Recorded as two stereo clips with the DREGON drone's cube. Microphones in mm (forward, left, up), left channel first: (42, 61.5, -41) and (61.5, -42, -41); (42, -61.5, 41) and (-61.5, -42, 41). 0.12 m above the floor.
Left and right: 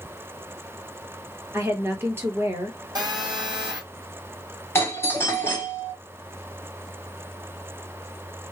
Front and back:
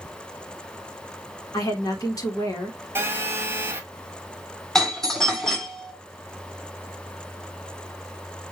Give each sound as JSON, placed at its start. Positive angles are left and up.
{"t": 1.5, "sound": "a woman speaking", "azimuth_deg": -30, "distance_m": 1.5}
{"t": 3.0, "sound": "a phone buzzing", "azimuth_deg": -120, "distance_m": 1.2}
{"t": 4.8, "sound": "a doorbell", "azimuth_deg": 70, "distance_m": 1.7}